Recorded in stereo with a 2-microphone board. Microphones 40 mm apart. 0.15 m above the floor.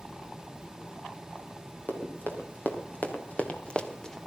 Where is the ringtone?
I don't hear a ringtone.